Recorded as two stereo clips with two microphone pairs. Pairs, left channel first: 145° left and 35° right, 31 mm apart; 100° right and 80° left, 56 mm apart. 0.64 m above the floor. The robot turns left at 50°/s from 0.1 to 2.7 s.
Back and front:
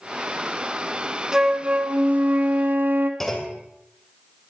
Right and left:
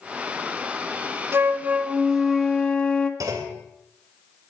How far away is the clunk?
About 2 m.